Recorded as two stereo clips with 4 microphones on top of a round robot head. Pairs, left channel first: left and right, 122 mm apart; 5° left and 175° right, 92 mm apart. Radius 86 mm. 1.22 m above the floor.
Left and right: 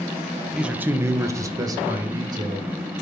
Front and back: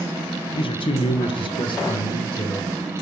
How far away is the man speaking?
About 1.0 m.